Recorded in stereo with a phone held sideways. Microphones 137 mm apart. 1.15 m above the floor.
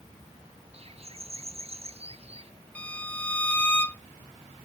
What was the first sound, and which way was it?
A bird, 45° right (ahead or behind).